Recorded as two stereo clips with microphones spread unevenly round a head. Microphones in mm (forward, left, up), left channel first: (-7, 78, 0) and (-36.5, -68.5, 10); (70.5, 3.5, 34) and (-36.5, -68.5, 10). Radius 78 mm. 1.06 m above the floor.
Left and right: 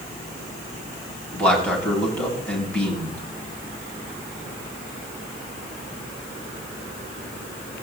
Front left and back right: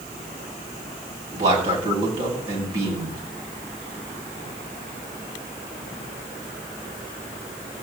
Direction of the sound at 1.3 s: 160° left.